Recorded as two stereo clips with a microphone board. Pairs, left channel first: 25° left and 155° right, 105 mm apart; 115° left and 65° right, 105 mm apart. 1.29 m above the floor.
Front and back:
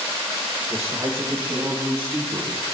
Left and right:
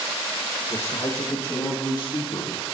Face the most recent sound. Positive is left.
turn(degrees=140)